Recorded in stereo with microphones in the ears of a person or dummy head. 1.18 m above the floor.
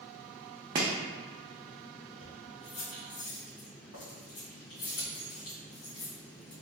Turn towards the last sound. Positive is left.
turn(degrees=70)  # may be behind; listen again after turning